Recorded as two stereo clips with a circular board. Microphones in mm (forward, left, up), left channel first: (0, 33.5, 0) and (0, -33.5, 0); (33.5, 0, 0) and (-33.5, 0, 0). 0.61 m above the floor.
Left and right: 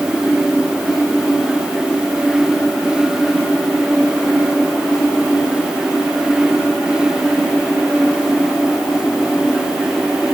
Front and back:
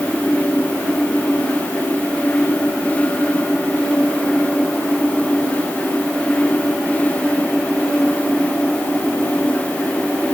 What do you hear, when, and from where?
Only background noise.